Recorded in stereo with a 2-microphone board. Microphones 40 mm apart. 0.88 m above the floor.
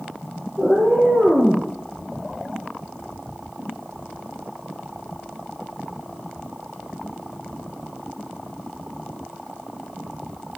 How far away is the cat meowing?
About 3.5 m.